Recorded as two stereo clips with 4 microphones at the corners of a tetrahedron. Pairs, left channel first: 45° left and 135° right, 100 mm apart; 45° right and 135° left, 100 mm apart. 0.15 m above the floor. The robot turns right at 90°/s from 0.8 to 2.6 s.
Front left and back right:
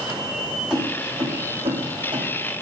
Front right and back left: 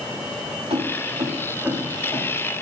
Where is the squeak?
I don't hear a squeak.